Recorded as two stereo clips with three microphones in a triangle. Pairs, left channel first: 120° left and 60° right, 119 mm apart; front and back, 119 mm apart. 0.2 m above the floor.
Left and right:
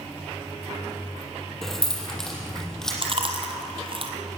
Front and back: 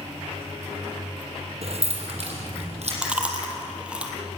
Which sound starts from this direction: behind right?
Keys jangling, at 1.6 s.